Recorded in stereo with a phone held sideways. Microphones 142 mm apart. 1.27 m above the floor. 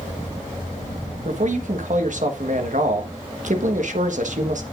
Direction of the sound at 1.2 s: 60° right (ahead or behind).